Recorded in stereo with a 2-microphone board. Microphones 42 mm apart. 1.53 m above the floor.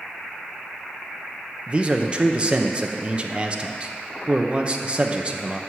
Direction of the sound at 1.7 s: 30° right (ahead or behind).